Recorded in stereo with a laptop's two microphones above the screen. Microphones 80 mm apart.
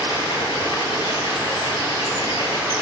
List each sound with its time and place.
0.0 s running water: 75° left (ahead or behind), 6 m